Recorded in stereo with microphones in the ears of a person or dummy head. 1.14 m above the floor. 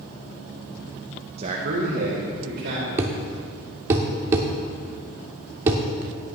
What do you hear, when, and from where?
1.4 s a man speaking: 35° right (ahead or behind), 0.9 m; by 2.9 s 55° right (ahead or behind), 2.5 m
3.0 s a thud: 20° right (ahead or behind), 0.8 m